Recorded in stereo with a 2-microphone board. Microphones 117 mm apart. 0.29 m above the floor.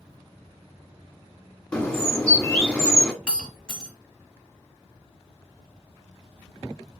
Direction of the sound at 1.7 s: 10° left (ahead or behind).